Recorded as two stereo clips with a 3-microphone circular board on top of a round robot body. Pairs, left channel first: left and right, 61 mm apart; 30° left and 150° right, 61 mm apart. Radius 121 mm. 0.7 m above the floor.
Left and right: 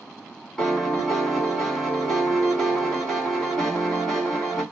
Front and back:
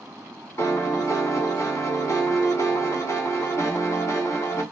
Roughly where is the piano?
Ahead.